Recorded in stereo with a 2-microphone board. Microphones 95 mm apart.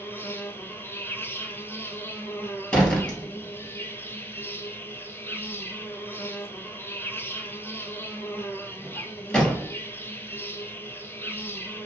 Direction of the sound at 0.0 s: 25° left (ahead or behind).